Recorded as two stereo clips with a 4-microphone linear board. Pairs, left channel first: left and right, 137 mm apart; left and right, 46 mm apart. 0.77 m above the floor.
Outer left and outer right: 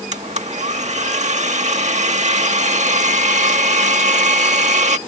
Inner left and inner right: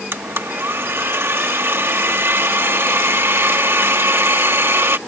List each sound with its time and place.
0.1 s a blender: 60° right (ahead or behind)